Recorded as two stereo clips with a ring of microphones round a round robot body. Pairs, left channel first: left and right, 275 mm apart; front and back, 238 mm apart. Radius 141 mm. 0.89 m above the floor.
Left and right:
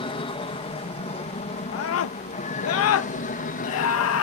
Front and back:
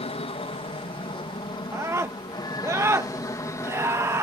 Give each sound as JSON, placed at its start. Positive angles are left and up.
{"t": 0.0, "sound": "an aircraft", "azimuth_deg": 35}
{"t": 1.7, "sound": "a scream", "azimuth_deg": 105}